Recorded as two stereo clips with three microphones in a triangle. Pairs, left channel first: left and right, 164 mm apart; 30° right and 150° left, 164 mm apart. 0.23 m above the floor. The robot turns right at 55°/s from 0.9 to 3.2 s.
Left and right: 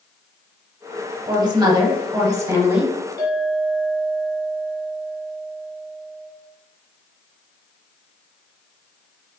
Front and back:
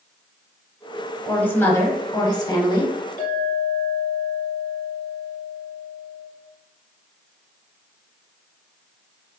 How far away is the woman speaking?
About 1.1 m.